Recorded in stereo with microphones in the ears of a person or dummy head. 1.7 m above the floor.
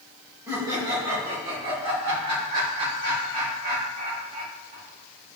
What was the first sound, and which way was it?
Laughter, 20° right (ahead or behind).